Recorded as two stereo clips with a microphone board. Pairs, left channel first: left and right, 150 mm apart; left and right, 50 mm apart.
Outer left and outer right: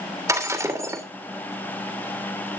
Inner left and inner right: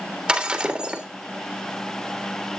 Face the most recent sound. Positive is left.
turn(degrees=-20)  # may be behind; listen again after turning